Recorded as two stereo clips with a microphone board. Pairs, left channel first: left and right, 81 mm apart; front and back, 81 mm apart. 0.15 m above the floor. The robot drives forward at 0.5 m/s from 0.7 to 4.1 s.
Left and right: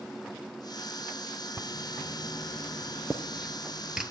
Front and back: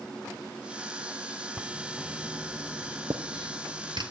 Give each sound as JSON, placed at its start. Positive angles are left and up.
{"t": 1.6, "sound": "writing", "azimuth_deg": -115, "distance_m": 0.5}